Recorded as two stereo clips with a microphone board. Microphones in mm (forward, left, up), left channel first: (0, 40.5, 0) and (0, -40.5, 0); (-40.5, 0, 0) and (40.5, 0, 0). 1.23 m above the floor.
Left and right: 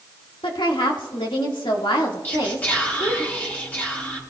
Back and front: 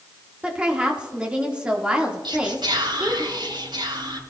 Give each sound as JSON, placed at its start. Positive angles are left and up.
{"t": 0.4, "sound": "a woman speaking", "azimuth_deg": 75, "distance_m": 1.8}
{"t": 2.2, "sound": "whispering", "azimuth_deg": 20, "distance_m": 6.0}